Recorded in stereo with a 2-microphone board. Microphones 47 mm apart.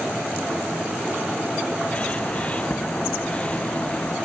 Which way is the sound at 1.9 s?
25° left (ahead or behind).